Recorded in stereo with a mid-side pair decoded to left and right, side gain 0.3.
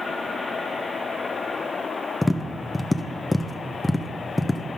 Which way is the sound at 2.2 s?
15° left.